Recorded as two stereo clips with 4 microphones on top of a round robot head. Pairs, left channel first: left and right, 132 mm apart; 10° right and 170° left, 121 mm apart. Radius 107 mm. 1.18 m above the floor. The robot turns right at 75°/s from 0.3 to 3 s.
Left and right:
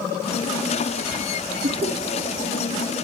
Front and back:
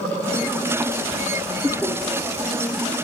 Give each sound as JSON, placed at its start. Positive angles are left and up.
{"t": 1.6, "sound": "laughter", "azimuth_deg": -115, "distance_m": 2.0}